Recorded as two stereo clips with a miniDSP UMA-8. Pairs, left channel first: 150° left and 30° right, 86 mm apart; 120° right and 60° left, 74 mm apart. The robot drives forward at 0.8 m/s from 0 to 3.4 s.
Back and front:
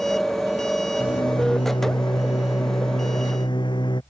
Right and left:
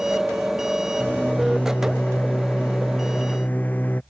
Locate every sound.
1.0 s a microwave: 170° left; by 4.0 s 175° left